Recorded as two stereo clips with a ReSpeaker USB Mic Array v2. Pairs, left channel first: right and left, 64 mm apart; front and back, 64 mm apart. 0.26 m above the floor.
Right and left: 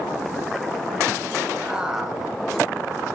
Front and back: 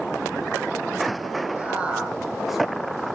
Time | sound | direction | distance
1.6 | a man speaking | 145° left | 1.2 m